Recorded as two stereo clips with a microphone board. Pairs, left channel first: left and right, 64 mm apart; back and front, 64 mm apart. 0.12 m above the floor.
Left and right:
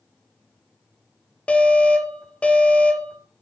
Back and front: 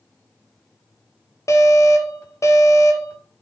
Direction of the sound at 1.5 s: 160° left.